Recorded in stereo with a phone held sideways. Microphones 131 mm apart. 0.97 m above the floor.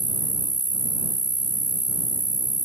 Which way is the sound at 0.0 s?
70° right (ahead or behind).